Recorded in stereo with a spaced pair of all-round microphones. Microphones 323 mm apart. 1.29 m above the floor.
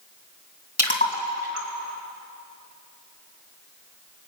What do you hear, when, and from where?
0.8 s a splash: 30° left (ahead or behind), 2.5 m